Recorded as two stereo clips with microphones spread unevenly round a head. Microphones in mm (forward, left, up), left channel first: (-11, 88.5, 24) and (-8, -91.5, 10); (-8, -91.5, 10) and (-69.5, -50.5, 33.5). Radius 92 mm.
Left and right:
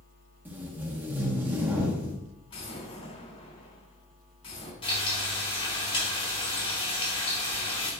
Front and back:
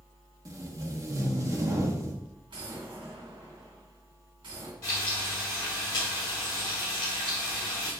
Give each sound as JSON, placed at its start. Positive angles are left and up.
{"t": 0.5, "sound": "tape being pulled", "azimuth_deg": -170, "distance_m": 1.5}
{"t": 2.5, "sound": "an explosion", "azimuth_deg": 150, "distance_m": 3.0}
{"t": 4.8, "sound": "frying", "azimuth_deg": 30, "distance_m": 3.0}